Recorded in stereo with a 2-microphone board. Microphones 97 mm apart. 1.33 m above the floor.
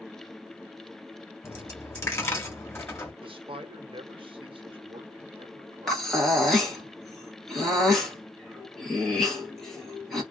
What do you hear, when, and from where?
1.4 s a dropped coin: 25° left (ahead or behind), 1.0 m
3.2 s a man speaking: 65° right (ahead or behind), 0.8 m
5.9 s breathing: 5° left (ahead or behind), 1.0 m